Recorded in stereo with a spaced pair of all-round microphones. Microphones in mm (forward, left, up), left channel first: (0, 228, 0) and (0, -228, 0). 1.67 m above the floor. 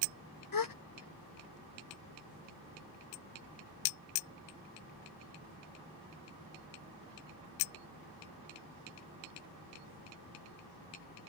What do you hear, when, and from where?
0.5 s a gasp: 45° left (ahead or behind)